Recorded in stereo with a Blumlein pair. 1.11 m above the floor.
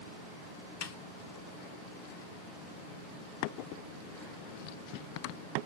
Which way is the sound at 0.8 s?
50° left.